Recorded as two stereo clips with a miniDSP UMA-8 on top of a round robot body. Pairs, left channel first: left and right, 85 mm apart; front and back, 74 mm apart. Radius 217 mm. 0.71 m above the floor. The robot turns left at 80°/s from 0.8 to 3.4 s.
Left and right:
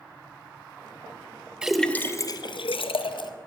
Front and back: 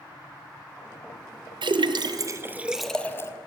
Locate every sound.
1.6 s a splash: 170° right, 0.7 m; by 3.3 s 55° left, 0.7 m